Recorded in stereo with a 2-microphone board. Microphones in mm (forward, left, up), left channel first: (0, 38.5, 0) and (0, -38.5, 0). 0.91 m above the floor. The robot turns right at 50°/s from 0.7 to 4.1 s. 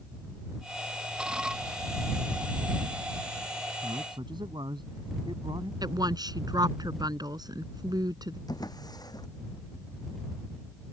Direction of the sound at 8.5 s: 55° left (ahead or behind).